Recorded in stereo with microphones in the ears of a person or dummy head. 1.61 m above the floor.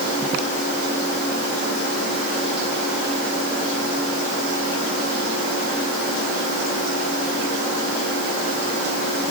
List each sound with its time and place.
Only background noise.